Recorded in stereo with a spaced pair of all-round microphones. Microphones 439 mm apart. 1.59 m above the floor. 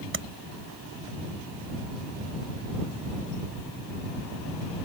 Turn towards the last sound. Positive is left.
turn(degrees=-25)  # may be behind; listen again after turning